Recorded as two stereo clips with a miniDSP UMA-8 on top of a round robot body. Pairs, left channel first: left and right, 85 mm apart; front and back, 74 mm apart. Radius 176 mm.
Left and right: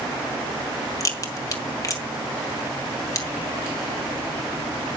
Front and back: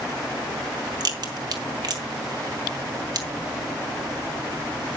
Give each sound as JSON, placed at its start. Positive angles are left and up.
{"t": 1.0, "sound": "a crack", "azimuth_deg": 145, "distance_m": 2.0}